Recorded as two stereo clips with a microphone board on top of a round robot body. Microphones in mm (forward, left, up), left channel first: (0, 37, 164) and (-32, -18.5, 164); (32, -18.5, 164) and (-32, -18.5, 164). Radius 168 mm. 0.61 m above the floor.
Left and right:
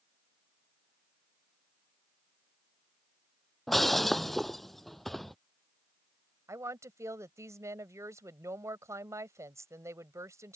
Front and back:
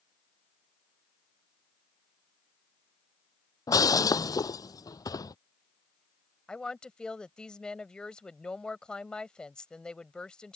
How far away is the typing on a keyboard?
No typing on a keyboard in this recording.